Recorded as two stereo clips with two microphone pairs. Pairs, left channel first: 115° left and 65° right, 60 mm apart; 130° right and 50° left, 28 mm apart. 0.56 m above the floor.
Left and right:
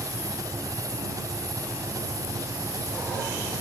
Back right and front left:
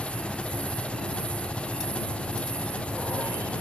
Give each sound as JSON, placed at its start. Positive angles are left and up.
{"t": 0.0, "sound": "an engine running", "azimuth_deg": -85}